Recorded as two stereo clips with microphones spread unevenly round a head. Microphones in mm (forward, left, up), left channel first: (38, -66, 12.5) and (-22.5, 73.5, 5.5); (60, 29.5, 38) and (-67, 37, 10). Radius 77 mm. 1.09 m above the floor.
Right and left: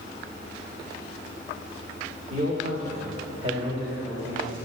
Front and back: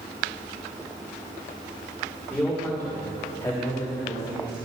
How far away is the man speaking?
About 3.5 m.